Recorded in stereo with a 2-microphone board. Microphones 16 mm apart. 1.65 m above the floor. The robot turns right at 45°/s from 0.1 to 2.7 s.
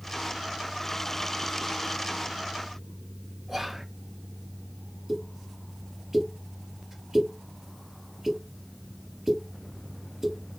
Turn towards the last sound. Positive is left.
turn(degrees=-30)  # may be behind; listen again after turning